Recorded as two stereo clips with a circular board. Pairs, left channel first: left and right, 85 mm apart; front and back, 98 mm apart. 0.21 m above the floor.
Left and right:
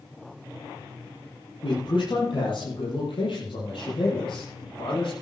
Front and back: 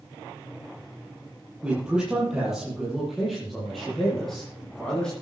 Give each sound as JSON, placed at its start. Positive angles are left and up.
{"t": 1.6, "sound": "a man speaking", "azimuth_deg": 100, "distance_m": 7.0}